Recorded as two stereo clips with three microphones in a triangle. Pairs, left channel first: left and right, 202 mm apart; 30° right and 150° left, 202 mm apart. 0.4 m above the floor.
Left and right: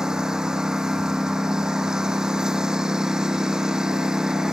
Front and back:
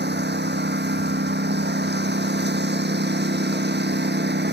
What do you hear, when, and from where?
0.0 s a lawn mower: 175° right